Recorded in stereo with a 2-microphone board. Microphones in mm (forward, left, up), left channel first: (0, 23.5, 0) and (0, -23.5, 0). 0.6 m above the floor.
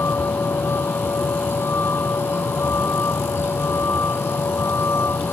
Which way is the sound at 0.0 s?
65° left (ahead or behind).